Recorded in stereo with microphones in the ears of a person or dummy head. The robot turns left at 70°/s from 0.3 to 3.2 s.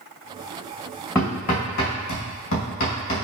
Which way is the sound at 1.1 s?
10° left (ahead or behind).